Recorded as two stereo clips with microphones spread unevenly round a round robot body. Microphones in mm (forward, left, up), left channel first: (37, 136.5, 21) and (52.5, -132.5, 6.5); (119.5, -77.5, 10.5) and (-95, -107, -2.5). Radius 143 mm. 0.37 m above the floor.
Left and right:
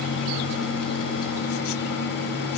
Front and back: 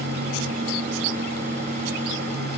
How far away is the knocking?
No knocking in this recording.